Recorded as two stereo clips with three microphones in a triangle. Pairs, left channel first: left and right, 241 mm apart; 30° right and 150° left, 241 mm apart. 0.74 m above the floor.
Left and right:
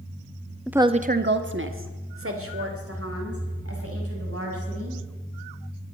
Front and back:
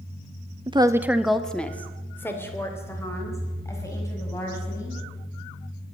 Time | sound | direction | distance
0.7 | a woman speaking | straight behind | 0.6 m